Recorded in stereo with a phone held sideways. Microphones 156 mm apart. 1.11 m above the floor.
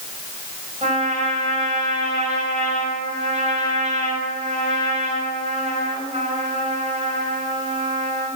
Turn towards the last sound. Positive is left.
turn(degrees=-45)  # may be behind; listen again after turning